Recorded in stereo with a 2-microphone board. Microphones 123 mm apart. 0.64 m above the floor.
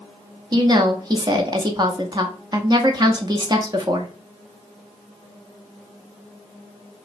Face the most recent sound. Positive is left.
turn(degrees=-35)  # may be behind; listen again after turning